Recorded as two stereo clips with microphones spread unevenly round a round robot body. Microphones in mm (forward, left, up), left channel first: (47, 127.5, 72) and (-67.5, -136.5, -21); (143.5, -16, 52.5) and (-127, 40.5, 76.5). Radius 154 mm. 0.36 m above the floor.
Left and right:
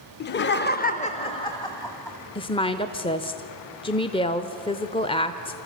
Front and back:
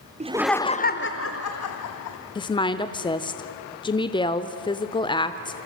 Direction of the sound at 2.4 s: 25° right.